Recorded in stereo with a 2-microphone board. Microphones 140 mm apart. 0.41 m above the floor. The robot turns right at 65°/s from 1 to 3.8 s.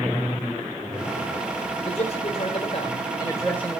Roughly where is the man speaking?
Ahead left.